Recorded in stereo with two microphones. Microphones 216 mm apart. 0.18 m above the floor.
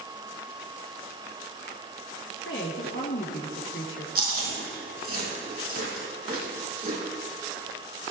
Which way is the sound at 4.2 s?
45° right (ahead or behind).